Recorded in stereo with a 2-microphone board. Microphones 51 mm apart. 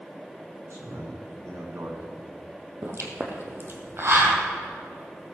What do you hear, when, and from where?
0.7 s a man speaking: 70° right (ahead or behind), 4.5 m; by 2.2 s 60° right (ahead or behind), 3 m
2.8 s a pop: 50° right (ahead or behind), 2.0 m